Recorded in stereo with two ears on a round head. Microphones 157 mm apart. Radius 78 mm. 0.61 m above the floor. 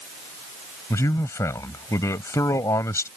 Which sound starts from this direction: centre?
A man speaking, at 0.9 s.